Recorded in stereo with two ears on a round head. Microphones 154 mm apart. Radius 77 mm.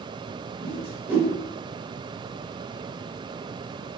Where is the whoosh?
10° right (ahead or behind), 0.8 m.